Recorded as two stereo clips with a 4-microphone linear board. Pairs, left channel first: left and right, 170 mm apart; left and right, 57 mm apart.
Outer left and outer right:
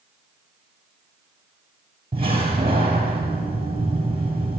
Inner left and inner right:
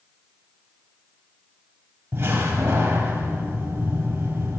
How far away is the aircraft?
I don't hear an aircraft.